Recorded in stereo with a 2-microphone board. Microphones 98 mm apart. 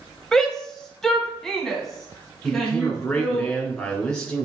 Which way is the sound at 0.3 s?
5° left (ahead or behind).